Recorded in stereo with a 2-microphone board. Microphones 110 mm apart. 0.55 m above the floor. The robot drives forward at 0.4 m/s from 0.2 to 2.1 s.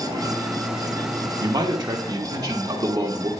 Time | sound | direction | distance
1.4 | a man speaking | 40° right (ahead or behind) | 1.1 m